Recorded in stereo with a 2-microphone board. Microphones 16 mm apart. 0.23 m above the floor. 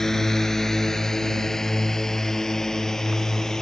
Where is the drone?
20° left (ahead or behind); by 3.6 s 25° left (ahead or behind).